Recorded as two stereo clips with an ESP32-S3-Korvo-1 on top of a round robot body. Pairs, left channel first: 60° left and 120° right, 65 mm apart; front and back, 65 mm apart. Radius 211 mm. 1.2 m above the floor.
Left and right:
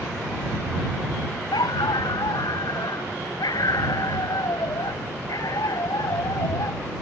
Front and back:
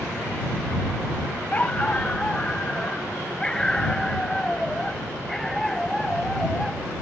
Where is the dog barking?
70° left; by 6.8 s 85° left.